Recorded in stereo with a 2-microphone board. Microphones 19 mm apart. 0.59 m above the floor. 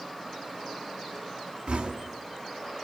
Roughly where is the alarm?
I don't hear an alarm.